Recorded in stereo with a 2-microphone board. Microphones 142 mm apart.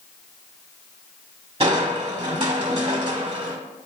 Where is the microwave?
I don't hear a microwave.